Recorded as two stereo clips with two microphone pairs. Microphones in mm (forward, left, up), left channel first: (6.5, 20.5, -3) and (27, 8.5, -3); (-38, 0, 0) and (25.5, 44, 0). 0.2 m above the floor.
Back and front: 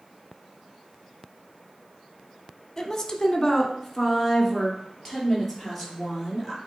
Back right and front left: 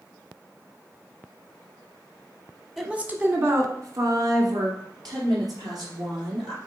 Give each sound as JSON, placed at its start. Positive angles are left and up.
{"t": 2.8, "sound": "a woman speaking", "azimuth_deg": 115, "distance_m": 1.1}